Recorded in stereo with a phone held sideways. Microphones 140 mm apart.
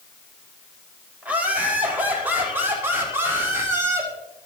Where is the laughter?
10° right (ahead or behind), 5 m; by 4.1 s 20° right (ahead or behind), 6 m.